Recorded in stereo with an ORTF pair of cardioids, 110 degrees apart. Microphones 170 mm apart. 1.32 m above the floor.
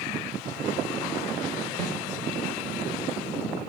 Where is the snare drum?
50° right, 5 m.